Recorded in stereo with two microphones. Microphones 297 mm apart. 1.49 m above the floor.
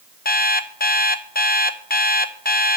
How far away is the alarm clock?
About 0.6 m.